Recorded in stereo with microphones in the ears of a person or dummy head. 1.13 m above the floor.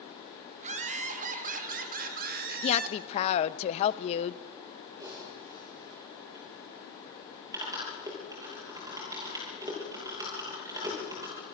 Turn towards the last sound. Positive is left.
turn(degrees=-15)  # may be behind; listen again after turning